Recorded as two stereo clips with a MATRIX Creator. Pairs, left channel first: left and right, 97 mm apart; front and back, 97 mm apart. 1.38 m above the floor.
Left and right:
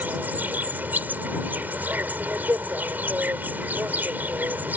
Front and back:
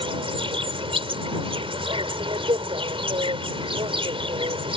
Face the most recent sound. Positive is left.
turn(degrees=-160)